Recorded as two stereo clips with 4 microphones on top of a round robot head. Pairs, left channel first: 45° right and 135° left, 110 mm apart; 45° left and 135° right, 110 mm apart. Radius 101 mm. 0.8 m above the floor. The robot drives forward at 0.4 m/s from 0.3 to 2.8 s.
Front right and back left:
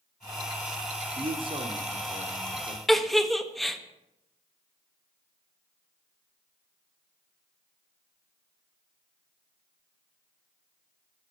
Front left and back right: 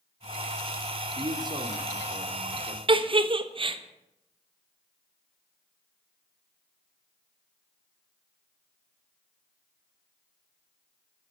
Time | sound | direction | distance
1.1 | a man speaking | 175° left | 1.9 m
2.9 | a giggle | 135° right | 1.5 m